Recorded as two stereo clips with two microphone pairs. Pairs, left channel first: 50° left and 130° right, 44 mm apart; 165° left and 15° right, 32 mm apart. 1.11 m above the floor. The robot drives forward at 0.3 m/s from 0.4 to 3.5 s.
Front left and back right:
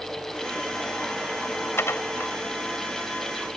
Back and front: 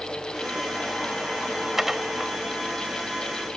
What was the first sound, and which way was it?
Dishes clattering, 65° left.